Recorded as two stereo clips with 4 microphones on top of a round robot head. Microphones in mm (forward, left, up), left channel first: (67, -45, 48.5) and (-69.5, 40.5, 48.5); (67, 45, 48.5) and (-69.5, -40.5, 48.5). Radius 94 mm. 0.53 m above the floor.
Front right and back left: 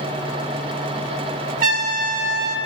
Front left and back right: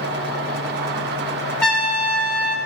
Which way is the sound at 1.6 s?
120° left.